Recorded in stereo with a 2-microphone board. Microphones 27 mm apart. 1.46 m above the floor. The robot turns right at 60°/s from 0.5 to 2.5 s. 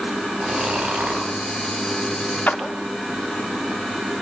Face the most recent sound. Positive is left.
turn(degrees=60)  # may be behind; listen again after turning